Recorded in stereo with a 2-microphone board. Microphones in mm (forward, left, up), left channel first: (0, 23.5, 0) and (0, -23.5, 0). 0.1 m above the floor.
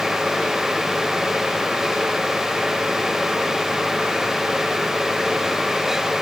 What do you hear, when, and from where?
Only background noise.